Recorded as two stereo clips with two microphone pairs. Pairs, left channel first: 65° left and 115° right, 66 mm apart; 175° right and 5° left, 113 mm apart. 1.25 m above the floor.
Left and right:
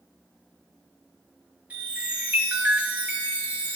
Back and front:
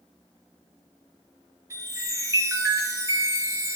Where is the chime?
55° right, 1.6 m.